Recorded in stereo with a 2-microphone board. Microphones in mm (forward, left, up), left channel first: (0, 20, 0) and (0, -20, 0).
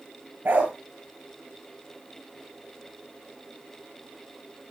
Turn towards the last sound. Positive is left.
turn(degrees=-50)  # may be behind; listen again after turning